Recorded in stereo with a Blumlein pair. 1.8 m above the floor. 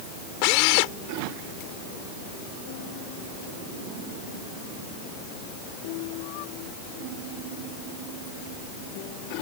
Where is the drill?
45° left.